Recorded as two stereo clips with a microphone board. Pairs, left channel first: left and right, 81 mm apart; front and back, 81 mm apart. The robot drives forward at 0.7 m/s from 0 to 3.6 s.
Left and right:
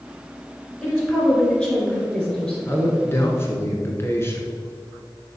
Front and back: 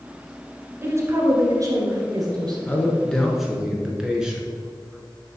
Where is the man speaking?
55° left, 1.4 m; by 4.5 s 105° left, 1.3 m.